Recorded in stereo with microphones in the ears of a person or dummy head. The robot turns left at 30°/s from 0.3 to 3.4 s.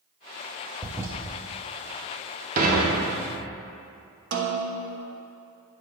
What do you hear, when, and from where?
0.8 s a toilet flushing: 10° right (ahead or behind), 0.7 m; by 1.1 s 15° right (ahead or behind), 0.7 m
2.6 s dishes clattering: 50° right (ahead or behind), 1.2 m; by 3.4 s 75° right (ahead or behind), 1.2 m
4.3 s a snare drum: 60° right (ahead or behind), 0.9 m